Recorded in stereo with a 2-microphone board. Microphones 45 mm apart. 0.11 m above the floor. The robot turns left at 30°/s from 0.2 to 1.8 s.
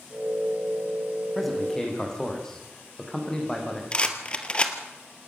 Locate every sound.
1.4 s a man speaking: centre (ahead or behind), 5.5 m; by 3.8 s 15° left (ahead or behind), 5.5 m
3.9 s a rattle: 25° left (ahead or behind), 1.9 m